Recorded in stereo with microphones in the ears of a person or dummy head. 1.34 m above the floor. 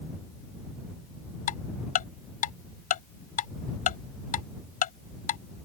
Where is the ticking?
45° left (ahead or behind).